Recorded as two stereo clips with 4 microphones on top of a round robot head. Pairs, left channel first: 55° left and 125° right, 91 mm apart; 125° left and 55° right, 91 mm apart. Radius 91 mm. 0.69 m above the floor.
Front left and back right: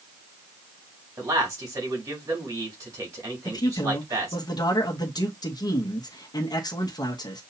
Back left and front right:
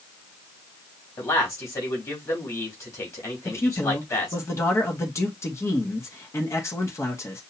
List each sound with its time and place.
1.2 s a man speaking: straight behind, 3.5 m
3.5 s a man speaking: 75° left, 1.2 m